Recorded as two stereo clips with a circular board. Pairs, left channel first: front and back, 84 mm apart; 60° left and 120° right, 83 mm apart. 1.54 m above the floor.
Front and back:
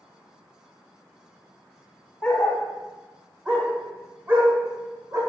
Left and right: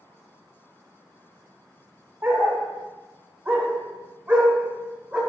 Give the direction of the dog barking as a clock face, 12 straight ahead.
2 o'clock.